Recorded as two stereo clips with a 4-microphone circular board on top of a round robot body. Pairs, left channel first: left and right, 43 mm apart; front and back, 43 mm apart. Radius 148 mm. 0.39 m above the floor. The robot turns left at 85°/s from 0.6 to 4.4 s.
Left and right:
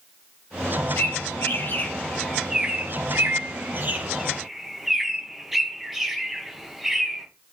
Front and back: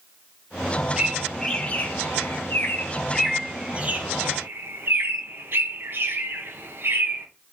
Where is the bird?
115° left, 1.6 m; by 7.3 s 175° right, 1.6 m.